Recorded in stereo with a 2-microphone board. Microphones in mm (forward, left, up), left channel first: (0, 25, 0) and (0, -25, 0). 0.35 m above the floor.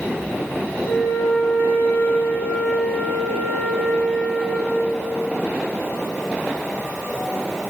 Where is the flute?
55° left (ahead or behind), 1.0 m.